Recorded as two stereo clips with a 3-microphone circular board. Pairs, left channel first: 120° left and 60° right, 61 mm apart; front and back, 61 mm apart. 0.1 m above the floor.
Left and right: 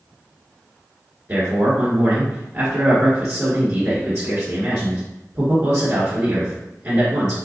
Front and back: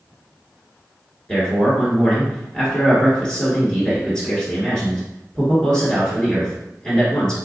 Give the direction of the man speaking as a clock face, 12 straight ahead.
2 o'clock.